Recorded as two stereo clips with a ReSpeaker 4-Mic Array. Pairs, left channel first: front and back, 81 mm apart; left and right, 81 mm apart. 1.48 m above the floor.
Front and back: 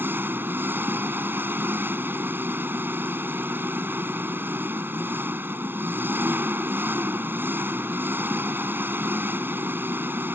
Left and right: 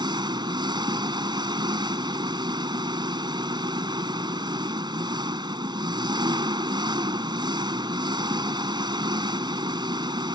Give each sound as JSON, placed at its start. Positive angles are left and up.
{"t": 0.0, "sound": "an engine running", "azimuth_deg": -115}